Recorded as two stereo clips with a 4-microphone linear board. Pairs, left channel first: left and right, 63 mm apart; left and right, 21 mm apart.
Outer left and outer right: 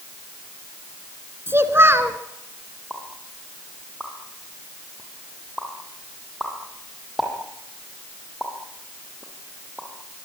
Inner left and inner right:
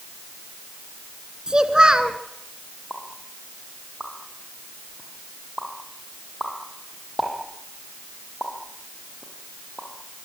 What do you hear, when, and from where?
1.5 s a child speaking: 40° right (ahead or behind), 1.8 m
2.9 s a pop: 5° right (ahead or behind), 7 m